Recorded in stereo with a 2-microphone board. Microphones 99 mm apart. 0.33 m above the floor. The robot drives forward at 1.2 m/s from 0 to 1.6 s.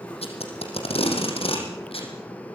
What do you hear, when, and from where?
0.2 s tape being pulled: 85° left, 6 m; by 2.1 s 70° left (ahead or behind), 6.5 m